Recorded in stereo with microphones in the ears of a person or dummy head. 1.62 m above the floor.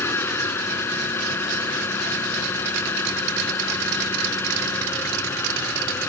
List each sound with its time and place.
0.0 s an engine running: 15° left (ahead or behind)